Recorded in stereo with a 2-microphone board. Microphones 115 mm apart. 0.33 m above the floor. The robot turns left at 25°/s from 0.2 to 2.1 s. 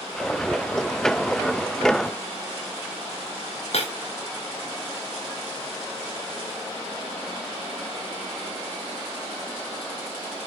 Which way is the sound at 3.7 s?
60° left (ahead or behind).